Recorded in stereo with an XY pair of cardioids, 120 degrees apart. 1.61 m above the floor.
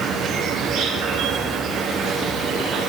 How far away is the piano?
No piano in this recording.